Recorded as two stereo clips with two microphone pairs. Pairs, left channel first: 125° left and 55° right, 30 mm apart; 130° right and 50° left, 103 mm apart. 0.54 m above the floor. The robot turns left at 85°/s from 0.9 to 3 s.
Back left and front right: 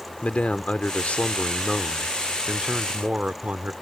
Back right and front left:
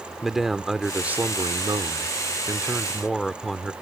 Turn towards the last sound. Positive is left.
turn(degrees=-40)